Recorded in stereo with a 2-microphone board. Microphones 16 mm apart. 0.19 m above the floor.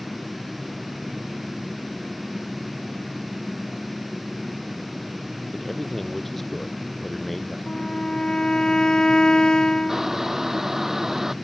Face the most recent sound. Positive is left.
turn(degrees=-25)  # may be behind; listen again after turning